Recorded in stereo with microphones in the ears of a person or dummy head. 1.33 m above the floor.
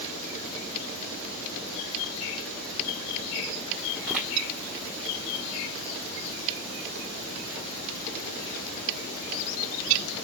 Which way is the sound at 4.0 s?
5° right (ahead or behind).